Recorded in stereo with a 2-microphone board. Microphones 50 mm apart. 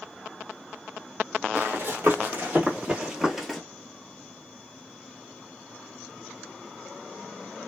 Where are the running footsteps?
50° right (ahead or behind), 1.5 m; by 3.6 s 5° left (ahead or behind), 0.9 m.